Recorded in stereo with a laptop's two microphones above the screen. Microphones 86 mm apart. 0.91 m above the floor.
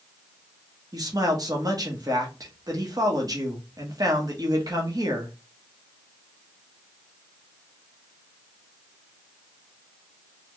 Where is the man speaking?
45° right (ahead or behind), 0.9 m.